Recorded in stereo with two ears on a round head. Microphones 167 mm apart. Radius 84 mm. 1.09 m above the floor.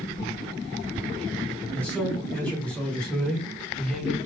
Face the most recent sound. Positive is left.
turn(degrees=0)  # may be behind; listen again after turning